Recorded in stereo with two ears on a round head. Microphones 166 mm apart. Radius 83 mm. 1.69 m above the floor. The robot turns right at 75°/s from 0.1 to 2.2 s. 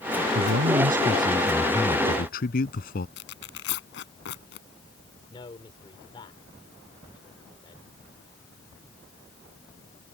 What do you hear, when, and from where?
0.3 s a man speaking: 90° right; by 3.1 s 50° left
3.2 s tearing paper: 65° left (ahead or behind)
5.3 s a man speaking: 25° left (ahead or behind)